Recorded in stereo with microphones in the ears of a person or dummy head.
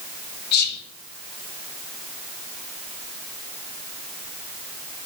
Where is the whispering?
65° left (ahead or behind), 0.5 m.